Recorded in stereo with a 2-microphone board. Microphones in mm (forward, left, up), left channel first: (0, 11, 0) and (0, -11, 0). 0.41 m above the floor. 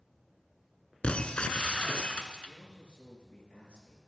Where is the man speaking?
70° left (ahead or behind), 6.5 m.